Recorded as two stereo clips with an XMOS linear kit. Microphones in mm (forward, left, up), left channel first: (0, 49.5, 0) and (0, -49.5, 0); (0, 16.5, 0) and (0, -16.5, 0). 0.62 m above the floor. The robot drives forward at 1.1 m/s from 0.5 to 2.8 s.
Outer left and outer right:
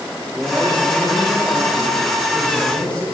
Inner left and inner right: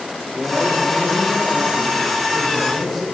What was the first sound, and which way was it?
A man speaking, 5° left (ahead or behind).